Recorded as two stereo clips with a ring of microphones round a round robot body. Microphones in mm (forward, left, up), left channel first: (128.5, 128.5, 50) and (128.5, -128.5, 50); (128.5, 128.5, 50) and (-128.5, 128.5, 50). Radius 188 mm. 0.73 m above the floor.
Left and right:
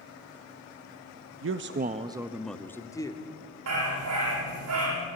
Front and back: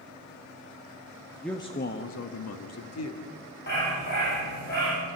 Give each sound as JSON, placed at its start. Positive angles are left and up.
{"t": 1.4, "sound": "a man speaking", "azimuth_deg": -90, "distance_m": 0.9}
{"t": 3.7, "sound": "a dog barking", "azimuth_deg": -65, "distance_m": 9.0}